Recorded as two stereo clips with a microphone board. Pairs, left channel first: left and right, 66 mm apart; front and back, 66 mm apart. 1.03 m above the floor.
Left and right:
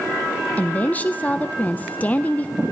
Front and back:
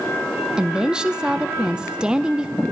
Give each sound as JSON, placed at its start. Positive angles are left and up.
{"t": 0.6, "sound": "a woman speaking", "azimuth_deg": 120, "distance_m": 0.6}